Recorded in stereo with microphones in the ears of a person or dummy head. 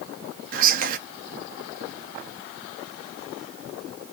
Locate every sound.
0.5 s whispering: 45° right (ahead or behind), 1.1 m